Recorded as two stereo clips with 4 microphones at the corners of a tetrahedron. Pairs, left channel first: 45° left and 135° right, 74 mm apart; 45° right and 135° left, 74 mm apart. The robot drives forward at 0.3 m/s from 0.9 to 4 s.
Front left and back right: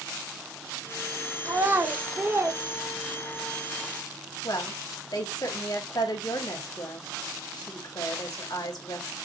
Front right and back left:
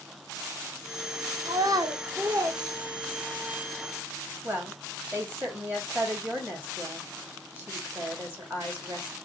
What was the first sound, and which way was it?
A child speaking, 165° left.